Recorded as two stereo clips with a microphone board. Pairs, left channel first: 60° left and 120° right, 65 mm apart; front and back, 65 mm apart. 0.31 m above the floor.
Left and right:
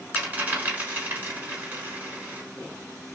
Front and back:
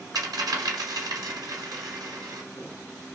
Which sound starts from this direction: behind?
A dropped coin, at 0.1 s.